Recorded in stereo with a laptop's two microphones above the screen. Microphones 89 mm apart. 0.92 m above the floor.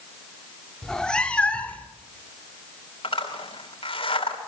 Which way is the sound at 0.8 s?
5° left (ahead or behind).